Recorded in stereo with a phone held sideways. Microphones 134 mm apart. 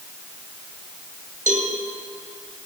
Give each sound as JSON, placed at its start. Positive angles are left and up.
{"t": 1.5, "sound": "a cowbell", "side_deg": -70, "distance_m": 2.0}